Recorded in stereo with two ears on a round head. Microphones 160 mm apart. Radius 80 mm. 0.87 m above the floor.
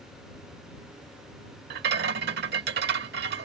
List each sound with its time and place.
1.7 s a rattle: 60° right (ahead or behind)